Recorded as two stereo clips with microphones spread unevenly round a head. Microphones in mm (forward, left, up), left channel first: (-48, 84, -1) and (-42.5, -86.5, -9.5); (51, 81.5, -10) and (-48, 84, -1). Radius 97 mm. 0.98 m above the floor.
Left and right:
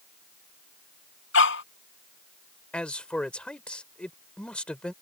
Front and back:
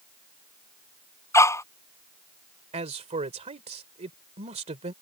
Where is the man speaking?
175° left.